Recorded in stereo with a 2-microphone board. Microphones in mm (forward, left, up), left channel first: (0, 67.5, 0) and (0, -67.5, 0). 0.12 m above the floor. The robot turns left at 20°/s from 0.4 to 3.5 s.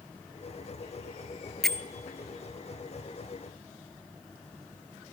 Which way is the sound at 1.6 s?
5° left (ahead or behind).